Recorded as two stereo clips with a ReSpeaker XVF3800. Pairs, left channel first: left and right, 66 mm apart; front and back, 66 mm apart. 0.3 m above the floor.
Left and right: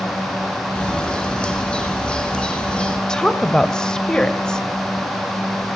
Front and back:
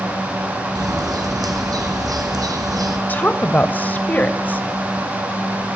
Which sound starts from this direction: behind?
A bird, at 0.8 s.